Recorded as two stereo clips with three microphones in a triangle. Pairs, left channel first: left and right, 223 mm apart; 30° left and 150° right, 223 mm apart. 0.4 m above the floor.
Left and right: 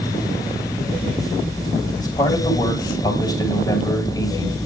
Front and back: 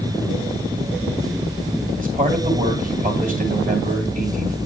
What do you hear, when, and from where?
2.0 s a man speaking: 160° left, 2.5 m